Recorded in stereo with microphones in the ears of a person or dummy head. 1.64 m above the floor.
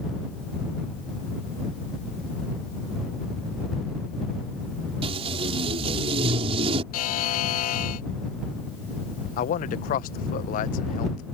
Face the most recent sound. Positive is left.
turn(degrees=40)  # may be behind; listen again after turning